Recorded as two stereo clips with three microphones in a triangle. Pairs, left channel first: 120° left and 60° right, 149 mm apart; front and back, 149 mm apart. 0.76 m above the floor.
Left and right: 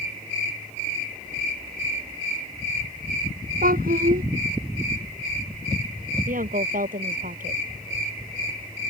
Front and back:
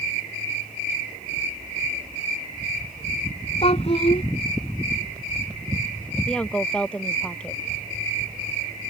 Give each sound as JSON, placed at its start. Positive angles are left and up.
{"t": 3.6, "sound": "a child speaking", "azimuth_deg": -50}
{"t": 6.3, "sound": "a woman speaking", "azimuth_deg": -85}